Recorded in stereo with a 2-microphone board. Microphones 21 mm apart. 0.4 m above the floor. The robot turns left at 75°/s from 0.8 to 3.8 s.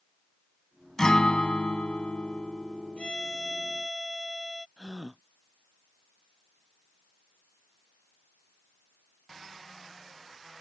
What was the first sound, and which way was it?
A guitar, 155° left.